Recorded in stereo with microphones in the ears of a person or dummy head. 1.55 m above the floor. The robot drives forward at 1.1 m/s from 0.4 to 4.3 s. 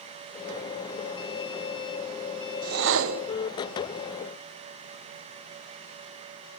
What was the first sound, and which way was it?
A whoosh, 45° right (ahead or behind).